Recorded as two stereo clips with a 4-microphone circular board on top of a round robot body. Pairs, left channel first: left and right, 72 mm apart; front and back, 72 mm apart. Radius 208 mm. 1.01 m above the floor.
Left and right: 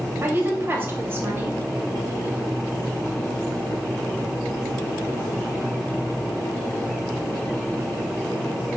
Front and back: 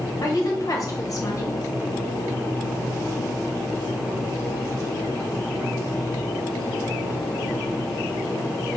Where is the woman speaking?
35° right, 2 m.